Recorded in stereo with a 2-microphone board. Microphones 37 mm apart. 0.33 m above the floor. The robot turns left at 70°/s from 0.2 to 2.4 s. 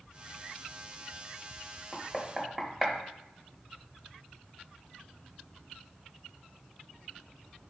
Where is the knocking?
10° left (ahead or behind), 0.7 m; by 3.0 s 10° right (ahead or behind), 0.7 m.